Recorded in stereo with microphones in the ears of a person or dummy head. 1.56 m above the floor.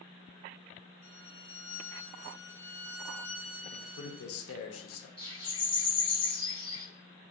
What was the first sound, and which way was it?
A violin, 70° left (ahead or behind).